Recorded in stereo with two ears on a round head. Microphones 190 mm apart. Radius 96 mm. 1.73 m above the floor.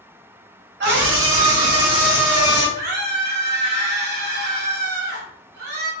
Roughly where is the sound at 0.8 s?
Right.